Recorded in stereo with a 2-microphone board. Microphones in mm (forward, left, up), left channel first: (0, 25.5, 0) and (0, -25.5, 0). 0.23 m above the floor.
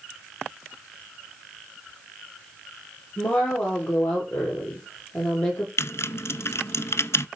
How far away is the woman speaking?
About 5.5 m.